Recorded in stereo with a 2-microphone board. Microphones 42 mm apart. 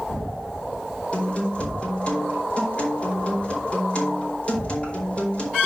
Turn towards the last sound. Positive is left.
turn(degrees=25)  # may be behind; listen again after turning